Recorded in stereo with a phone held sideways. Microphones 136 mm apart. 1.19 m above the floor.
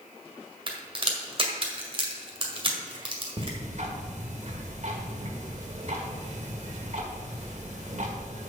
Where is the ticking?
60° right (ahead or behind), 1.9 m.